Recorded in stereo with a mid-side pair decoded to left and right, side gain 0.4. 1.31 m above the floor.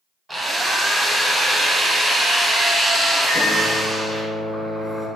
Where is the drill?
15° right, 1.0 m.